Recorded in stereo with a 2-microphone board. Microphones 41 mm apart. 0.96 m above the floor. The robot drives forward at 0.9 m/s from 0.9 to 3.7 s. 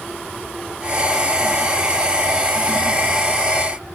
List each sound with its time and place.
Only background noise.